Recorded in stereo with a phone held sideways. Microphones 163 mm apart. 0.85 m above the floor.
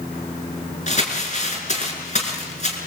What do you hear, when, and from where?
0.9 s crumpling: 45° left (ahead or behind), 6 m